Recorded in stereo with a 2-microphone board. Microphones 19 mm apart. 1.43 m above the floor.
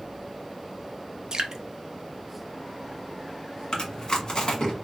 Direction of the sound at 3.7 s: 45° left (ahead or behind).